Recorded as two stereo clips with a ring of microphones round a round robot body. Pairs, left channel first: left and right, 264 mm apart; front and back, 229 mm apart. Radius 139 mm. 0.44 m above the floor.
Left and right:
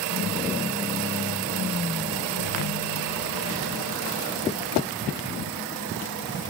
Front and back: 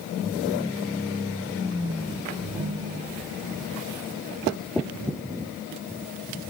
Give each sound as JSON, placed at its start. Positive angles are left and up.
{"t": 2.4, "sound": "a ringtone", "azimuth_deg": 120, "distance_m": 2.5}